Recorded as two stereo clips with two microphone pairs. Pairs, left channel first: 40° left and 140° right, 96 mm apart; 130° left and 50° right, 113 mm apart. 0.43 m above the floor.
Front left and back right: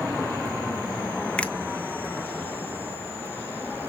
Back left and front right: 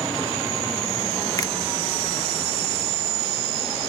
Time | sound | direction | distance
1.4 | a finger snap | 120° left | 0.6 m